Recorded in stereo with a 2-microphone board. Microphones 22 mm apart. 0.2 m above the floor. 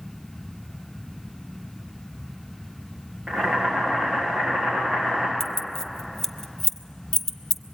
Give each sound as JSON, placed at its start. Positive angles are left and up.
{"t": 3.3, "sound": "boiling", "side_deg": -45, "distance_m": 8.0}
{"t": 5.4, "sound": "keys jangling", "side_deg": 20, "distance_m": 0.7}